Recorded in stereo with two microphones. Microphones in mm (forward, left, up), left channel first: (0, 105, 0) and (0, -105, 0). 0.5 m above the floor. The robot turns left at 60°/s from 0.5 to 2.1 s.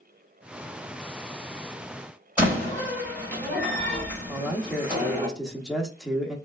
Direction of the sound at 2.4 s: 5° right (ahead or behind).